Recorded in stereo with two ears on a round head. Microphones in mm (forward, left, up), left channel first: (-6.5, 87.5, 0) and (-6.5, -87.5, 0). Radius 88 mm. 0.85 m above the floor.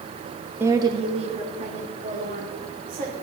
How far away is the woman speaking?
About 0.8 m.